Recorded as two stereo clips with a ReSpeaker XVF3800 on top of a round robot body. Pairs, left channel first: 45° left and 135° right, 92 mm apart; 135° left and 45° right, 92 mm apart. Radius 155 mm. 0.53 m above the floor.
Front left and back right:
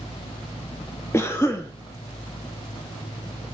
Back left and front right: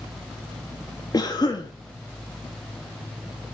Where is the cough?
100° left, 1.4 m.